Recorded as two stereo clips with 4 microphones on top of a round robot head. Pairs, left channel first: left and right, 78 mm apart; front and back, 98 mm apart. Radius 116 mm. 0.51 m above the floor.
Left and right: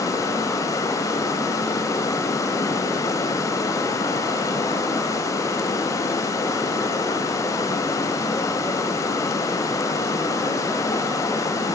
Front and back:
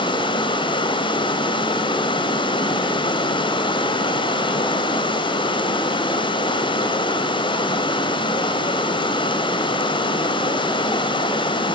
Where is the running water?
35° left, 1.5 m.